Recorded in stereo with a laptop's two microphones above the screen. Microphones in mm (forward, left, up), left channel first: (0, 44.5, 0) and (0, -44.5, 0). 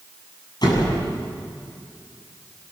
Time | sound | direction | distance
0.6 | a door slam | 50° left (ahead or behind) | 7 m